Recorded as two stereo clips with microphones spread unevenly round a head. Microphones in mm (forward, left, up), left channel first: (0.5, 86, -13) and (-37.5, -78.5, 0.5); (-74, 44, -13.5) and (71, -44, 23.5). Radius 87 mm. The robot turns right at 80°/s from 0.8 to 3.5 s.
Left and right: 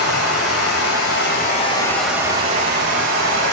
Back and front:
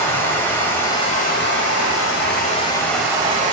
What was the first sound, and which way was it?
Running water, 70° left.